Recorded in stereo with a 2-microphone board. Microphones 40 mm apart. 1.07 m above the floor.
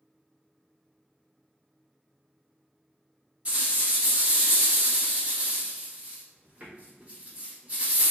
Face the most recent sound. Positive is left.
turn(degrees=-30)  # may be behind; listen again after turning